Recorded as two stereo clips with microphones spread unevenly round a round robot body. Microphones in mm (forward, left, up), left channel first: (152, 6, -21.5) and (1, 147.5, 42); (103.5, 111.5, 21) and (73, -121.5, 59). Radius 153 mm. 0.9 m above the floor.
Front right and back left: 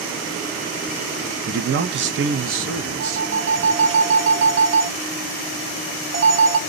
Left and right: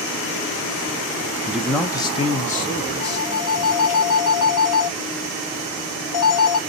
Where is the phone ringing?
105° left, 1.3 m.